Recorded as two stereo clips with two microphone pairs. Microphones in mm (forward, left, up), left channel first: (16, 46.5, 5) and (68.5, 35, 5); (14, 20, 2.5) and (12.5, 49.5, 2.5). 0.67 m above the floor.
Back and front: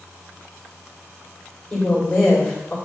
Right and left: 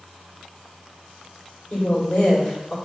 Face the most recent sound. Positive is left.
turn(degrees=-125)